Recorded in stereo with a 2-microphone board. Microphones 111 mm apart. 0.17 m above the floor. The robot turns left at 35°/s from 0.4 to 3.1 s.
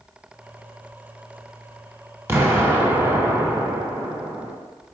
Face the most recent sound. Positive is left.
turn(degrees=-20)  # may be behind; listen again after turning